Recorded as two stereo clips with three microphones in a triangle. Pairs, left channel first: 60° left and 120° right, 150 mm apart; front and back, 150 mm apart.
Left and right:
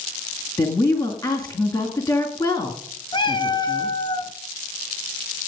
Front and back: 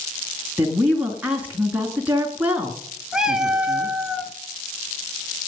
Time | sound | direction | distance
0.6 | a woman speaking | 110° left | 1.8 m
3.1 | a cat meowing | 95° left | 0.8 m